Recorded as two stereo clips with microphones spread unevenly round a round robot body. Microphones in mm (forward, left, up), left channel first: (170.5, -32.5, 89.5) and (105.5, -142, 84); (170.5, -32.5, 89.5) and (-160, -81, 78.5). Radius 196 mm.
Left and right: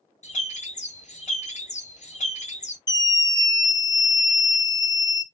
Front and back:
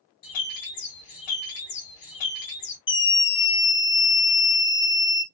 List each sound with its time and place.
0.2 s a bird: 30° left, 1.7 m
2.9 s a scream: 20° left, 0.9 m